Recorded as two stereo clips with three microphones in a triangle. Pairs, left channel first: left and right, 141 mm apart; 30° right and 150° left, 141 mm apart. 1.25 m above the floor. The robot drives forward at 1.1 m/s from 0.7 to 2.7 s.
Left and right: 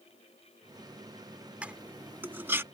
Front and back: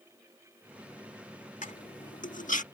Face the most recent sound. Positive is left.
turn(degrees=-20)